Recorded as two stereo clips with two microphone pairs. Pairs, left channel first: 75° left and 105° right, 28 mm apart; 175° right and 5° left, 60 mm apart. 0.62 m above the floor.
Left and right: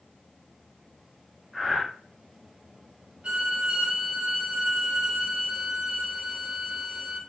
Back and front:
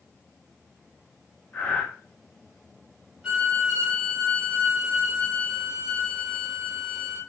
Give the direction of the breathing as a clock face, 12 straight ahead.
7 o'clock.